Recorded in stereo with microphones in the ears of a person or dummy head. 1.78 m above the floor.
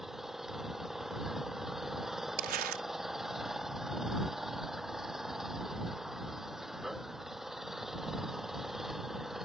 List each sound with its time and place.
0.0 s an engine running: centre (ahead or behind)
2.4 s crumpling: 45° right (ahead or behind)